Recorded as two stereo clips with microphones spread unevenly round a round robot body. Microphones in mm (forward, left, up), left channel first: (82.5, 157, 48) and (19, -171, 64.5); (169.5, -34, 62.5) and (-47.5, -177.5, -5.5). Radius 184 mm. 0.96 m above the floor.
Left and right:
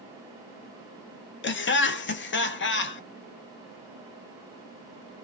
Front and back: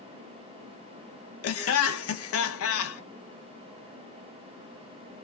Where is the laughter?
50° left, 0.8 m.